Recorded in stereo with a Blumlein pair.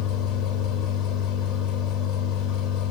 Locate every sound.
0.0 s a machine running: 35° left, 4 m